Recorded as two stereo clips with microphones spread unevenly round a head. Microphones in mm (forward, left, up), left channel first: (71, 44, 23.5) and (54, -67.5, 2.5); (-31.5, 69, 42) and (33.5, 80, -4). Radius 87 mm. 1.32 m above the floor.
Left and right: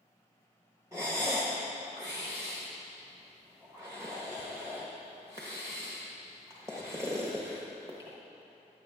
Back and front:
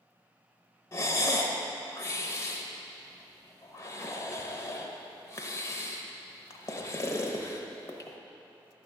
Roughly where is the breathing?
Behind.